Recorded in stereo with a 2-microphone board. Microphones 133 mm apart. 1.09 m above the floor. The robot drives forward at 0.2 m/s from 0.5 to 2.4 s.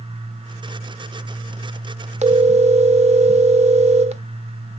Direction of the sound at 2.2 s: 55° right (ahead or behind).